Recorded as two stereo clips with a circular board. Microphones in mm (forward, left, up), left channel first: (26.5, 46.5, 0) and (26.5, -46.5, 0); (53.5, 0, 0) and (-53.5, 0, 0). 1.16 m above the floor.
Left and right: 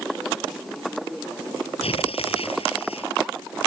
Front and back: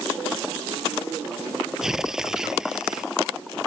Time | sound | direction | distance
1.8 | tearing paper | 95° left | ?